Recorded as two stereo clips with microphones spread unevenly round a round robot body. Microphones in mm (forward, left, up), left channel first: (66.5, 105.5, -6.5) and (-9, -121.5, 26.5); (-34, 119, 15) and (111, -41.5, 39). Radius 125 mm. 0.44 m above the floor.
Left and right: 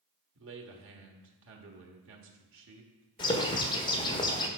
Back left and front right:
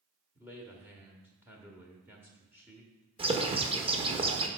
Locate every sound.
0.3 s a man speaking: 135° right, 1.4 m
3.2 s a bird: 15° left, 1.3 m